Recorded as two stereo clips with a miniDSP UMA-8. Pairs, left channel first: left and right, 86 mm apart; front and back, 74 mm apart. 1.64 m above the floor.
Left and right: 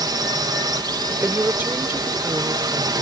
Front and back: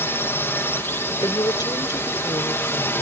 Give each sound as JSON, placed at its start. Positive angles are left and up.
{"t": 0.0, "sound": "a drone", "azimuth_deg": -55}
{"t": 1.2, "sound": "a woman speaking", "azimuth_deg": -20}